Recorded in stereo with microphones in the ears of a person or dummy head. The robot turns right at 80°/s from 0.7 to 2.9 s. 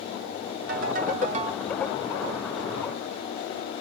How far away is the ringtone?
About 1.2 m.